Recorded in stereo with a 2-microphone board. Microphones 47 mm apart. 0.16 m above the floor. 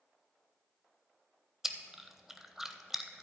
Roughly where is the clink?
I don't hear a clink.